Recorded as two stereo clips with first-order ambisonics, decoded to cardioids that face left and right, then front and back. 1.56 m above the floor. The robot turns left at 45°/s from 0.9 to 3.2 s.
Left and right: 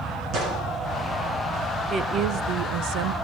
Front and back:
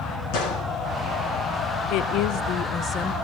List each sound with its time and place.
0.3 s a gunshot: 40° right, 9 m
1.9 s a woman speaking: 25° right, 0.8 m; by 3.1 s 80° right, 0.8 m